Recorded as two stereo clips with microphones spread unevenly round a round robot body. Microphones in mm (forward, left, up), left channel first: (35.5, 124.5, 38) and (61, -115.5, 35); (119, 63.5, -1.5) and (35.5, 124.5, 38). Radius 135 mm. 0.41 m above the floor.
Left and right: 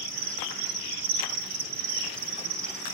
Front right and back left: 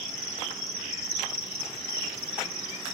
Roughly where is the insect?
Behind right.